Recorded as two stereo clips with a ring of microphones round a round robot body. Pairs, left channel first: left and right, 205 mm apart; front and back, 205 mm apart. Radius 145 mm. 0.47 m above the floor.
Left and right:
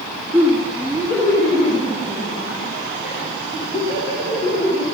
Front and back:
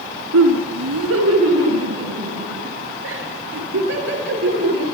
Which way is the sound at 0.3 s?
175° right.